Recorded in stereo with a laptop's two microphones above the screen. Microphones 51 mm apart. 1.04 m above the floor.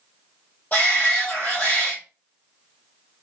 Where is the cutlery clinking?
I don't hear cutlery clinking.